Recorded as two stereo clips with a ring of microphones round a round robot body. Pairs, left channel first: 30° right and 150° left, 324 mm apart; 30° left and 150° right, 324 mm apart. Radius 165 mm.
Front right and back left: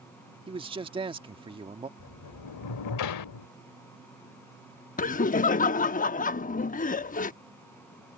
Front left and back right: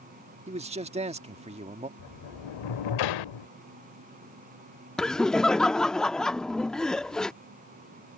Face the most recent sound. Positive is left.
turn(degrees=-55)